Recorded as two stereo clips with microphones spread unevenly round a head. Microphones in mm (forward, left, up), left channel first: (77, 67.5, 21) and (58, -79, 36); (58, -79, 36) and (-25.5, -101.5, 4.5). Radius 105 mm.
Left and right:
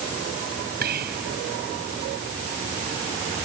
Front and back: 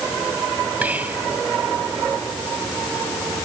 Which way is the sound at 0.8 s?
90° right.